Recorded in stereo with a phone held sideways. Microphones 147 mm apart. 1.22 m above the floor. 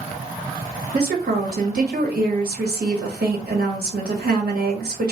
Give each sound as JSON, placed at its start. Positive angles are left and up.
{"t": 0.9, "sound": "a woman speaking", "side_deg": -80, "distance_m": 1.3}